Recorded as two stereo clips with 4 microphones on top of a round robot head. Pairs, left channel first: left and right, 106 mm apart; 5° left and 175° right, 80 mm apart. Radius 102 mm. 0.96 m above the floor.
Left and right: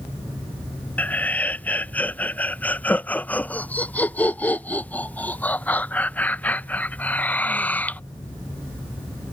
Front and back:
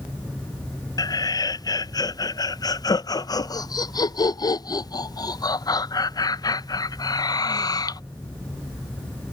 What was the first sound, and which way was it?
Laughter, 20° left.